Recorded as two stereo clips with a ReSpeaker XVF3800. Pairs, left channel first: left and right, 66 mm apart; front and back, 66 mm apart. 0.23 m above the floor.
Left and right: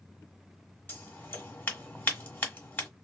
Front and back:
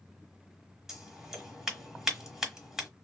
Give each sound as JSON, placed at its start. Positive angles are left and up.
{"t": 0.9, "sound": "scissors", "azimuth_deg": 105, "distance_m": 1.3}